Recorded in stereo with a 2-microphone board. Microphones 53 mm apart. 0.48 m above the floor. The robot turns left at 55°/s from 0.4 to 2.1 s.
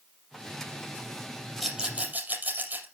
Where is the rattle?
5° right (ahead or behind), 4.5 m; by 2.9 s 30° right (ahead or behind), 4.5 m.